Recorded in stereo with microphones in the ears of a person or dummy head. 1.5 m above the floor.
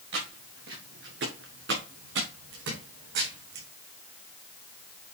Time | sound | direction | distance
0.1 | footsteps | 80° right | 7.5 m